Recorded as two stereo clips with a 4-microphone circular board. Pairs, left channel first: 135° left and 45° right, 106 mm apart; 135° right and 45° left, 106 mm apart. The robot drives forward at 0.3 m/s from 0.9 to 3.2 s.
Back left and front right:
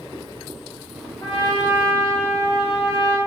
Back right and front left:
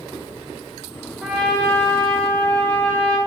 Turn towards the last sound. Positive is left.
turn(degrees=150)